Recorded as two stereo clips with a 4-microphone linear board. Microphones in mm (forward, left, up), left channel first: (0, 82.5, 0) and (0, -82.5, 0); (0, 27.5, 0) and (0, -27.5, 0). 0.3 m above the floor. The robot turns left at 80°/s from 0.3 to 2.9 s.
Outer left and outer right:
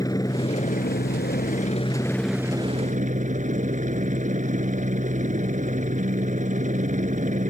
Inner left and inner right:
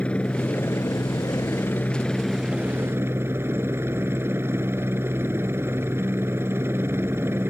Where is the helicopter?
160° left; by 7.5 s 50° right.